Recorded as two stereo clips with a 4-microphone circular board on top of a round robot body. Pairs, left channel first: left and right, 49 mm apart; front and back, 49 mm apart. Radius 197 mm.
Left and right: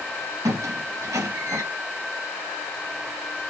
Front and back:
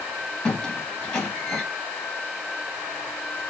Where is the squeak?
80° right, 1.0 m.